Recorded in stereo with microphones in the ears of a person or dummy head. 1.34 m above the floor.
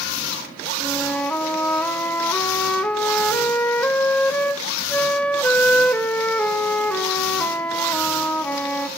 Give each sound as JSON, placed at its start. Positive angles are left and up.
{"t": 0.8, "sound": "a flute", "side_deg": 5, "distance_m": 0.7}